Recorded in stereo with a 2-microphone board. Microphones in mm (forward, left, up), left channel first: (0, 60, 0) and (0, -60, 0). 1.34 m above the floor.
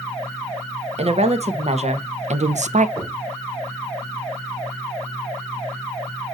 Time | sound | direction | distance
1.0 | a woman speaking | 55° right (ahead or behind) | 1.6 m
3.0 | knocking | 20° right (ahead or behind) | 5 m